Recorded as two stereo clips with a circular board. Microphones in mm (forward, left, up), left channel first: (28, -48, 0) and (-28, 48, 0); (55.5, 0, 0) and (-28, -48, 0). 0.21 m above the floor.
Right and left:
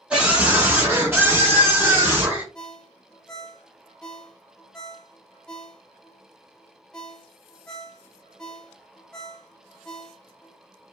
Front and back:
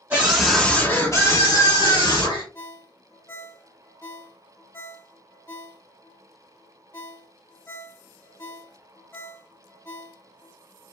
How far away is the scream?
About 1.4 m.